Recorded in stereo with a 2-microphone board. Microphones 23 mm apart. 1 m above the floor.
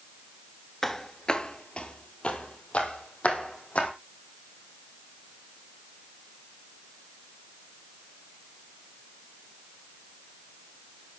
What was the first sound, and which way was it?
Footsteps, 20° left (ahead or behind).